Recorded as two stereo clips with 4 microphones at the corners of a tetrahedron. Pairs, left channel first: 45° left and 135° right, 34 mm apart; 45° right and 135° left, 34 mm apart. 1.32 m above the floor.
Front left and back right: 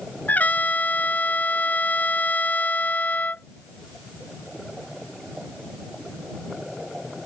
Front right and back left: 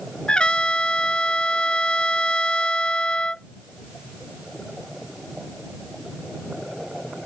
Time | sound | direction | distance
0.3 | a trumpet | 15° left | ?